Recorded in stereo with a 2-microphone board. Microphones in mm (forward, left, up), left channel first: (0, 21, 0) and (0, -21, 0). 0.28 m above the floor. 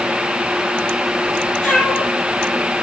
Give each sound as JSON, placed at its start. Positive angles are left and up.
{"t": 1.6, "sound": "a cat meowing", "side_deg": 30, "distance_m": 4.5}